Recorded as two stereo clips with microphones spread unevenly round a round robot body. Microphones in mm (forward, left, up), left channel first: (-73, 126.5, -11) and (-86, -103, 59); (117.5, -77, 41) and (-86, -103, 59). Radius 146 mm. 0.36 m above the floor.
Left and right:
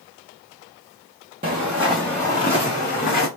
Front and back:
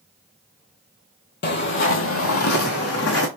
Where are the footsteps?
30° right, 0.9 m; by 3.3 s 25° left, 1.6 m.